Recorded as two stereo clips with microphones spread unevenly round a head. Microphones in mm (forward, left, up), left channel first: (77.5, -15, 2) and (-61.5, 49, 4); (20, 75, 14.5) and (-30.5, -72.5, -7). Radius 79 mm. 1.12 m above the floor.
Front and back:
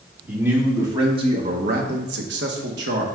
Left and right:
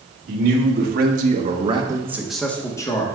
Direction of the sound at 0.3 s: 125° right.